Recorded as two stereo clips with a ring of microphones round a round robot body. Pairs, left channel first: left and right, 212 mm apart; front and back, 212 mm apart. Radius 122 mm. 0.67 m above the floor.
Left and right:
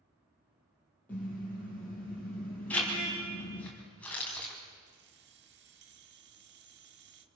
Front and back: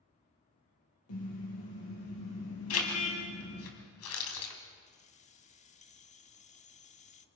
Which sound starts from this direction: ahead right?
Keys jangling, at 4.9 s.